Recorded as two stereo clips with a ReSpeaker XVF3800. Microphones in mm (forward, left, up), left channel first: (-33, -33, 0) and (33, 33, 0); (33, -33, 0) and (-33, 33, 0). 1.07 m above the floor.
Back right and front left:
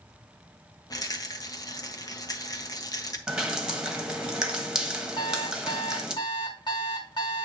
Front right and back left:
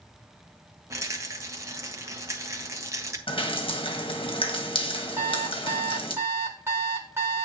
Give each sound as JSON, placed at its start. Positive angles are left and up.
{"t": 0.9, "sound": "a rattle", "azimuth_deg": -175, "distance_m": 1.0}
{"t": 3.3, "sound": "dripping", "azimuth_deg": -40, "distance_m": 1.2}
{"t": 5.2, "sound": "an alarm clock", "azimuth_deg": -165, "distance_m": 1.3}